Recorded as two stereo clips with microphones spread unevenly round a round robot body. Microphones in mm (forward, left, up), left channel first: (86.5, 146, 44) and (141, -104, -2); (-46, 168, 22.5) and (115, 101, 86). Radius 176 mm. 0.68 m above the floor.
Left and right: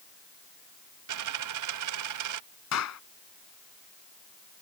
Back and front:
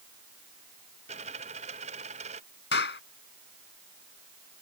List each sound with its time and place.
1.1 s a dropped coin: 90° right
2.7 s a clap: 150° left